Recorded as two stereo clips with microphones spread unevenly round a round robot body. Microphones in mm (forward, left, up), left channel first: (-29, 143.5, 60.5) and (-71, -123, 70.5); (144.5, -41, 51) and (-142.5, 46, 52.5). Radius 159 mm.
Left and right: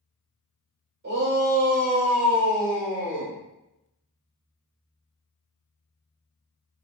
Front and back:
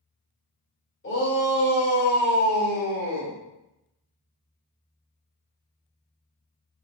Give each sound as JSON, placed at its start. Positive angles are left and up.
{"t": 1.0, "sound": "a shout", "azimuth_deg": -55, "distance_m": 1.8}